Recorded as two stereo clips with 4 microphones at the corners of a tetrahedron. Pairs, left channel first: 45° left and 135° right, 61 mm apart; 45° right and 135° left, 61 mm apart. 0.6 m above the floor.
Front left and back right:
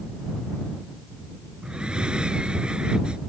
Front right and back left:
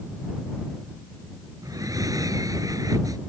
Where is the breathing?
150° left.